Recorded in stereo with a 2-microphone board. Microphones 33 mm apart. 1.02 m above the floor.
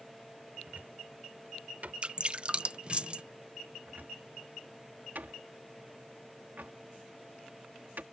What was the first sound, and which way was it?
A cupboard door, 55° right (ahead or behind).